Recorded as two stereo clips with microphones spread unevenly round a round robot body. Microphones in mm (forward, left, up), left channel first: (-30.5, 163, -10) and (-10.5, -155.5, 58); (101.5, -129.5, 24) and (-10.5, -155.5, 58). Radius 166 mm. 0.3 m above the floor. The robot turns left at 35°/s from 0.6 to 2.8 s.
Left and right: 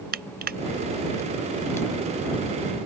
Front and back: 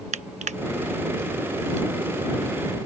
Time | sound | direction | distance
0.1 | crushing | 155° right | ?